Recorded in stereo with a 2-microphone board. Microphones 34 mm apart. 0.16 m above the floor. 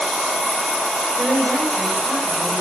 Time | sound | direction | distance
1.2 | a woman speaking | 45° right (ahead or behind) | 8.5 m